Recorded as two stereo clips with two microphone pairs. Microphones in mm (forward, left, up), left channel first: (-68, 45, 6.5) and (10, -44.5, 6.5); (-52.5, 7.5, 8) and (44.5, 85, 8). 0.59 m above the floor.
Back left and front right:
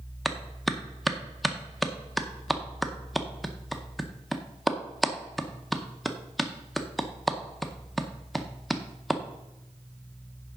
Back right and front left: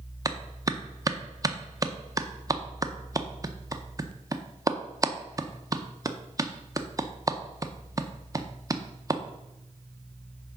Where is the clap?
45° left, 0.6 m.